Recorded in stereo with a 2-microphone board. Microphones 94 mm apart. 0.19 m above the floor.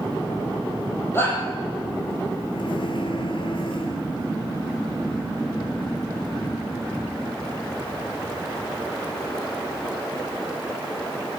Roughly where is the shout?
Left.